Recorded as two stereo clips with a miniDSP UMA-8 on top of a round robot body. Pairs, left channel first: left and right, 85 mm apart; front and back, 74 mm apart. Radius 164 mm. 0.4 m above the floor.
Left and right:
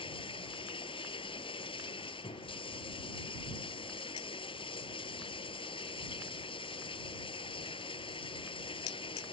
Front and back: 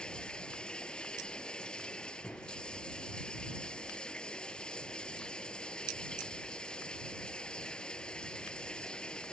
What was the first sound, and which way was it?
Running water, 80° left.